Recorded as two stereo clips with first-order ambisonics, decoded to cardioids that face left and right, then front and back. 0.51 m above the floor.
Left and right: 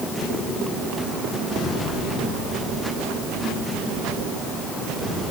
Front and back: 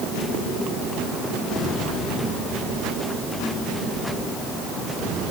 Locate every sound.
Only background noise.